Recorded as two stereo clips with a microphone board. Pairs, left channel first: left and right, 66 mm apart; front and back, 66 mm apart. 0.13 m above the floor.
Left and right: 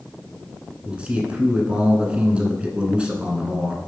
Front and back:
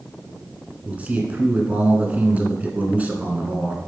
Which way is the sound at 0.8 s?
140° right.